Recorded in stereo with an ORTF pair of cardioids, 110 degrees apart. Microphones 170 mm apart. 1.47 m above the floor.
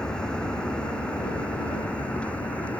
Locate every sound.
0.0 s a vehicle: 5° left